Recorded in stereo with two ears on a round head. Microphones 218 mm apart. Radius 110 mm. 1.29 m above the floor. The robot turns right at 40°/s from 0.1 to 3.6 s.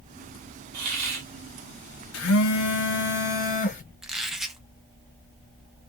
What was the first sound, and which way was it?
A hiss, 75° right (ahead or behind).